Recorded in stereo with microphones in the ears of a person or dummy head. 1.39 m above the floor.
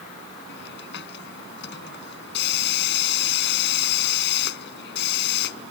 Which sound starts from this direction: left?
A hiss, at 0.5 s.